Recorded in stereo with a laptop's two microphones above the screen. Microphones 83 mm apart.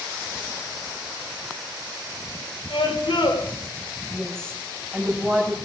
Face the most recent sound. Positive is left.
turn(degrees=10)  # may be behind; listen again after turning